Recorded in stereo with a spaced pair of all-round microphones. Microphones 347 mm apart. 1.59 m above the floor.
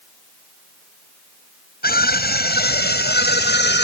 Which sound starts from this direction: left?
A scream, at 1.8 s.